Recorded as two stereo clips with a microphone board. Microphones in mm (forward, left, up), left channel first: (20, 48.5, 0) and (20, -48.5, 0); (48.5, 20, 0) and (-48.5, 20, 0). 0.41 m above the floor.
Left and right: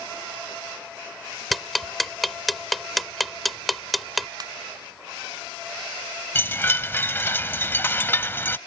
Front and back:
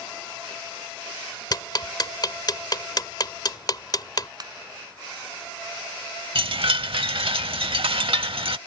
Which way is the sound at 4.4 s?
135° right.